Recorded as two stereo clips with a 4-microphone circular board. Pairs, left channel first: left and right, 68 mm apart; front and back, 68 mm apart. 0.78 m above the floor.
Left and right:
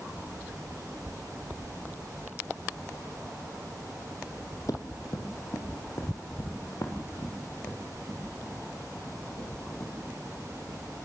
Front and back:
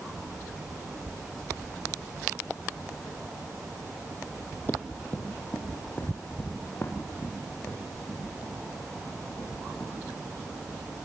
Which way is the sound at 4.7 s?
65° left.